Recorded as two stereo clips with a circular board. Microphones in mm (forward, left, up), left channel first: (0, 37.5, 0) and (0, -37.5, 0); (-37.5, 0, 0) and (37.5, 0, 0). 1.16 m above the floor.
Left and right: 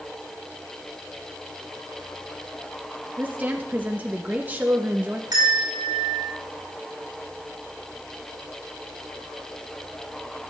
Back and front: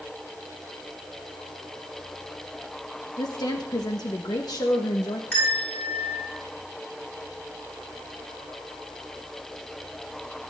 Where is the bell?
115° right, 8 m.